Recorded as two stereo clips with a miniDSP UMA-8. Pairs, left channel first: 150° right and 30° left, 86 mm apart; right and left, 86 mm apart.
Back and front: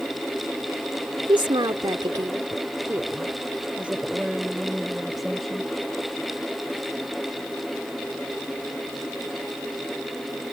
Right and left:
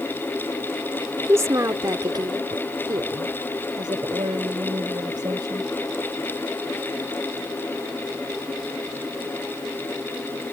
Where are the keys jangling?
No keys jangling in this recording.